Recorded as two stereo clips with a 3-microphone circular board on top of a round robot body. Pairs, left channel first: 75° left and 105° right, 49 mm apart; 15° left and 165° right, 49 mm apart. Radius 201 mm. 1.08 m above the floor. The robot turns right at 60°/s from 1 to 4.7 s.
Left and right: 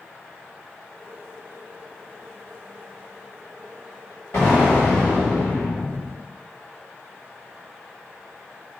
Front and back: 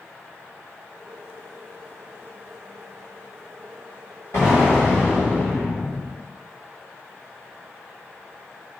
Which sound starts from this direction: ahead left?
An explosion, at 4.3 s.